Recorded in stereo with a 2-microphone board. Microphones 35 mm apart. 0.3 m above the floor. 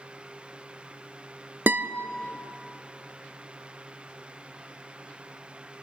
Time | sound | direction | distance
1.7 | a guitar | 75° right (ahead or behind) | 0.7 m